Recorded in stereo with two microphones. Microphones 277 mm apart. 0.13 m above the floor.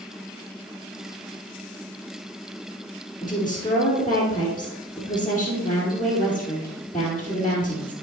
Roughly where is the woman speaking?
Centre.